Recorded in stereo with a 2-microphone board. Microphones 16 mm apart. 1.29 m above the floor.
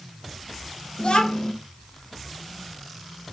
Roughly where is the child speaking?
Left.